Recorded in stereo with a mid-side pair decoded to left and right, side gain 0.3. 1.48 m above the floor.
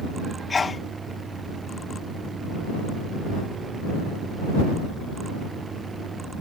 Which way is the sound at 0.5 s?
45° left.